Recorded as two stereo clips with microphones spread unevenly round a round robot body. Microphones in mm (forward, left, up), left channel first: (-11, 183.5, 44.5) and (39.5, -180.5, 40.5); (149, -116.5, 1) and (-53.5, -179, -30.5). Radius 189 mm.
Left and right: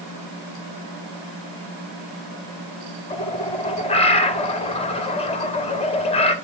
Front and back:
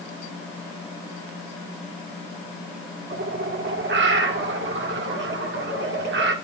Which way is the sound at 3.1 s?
170° left.